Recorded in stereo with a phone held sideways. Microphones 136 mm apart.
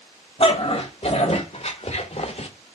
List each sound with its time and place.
0.4 s a dog barking: 45° left (ahead or behind), 2 m; by 2.5 s 50° left (ahead or behind), 0.9 m